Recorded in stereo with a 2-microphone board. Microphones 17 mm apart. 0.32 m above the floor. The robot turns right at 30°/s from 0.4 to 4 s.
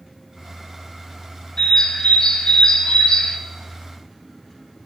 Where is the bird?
55° left, 0.7 m; by 3.4 s 105° left, 0.7 m.